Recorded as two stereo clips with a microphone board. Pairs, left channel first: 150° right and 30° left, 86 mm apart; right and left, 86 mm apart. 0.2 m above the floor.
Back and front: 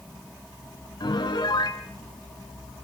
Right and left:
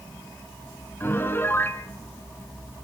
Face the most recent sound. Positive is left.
turn(degrees=-150)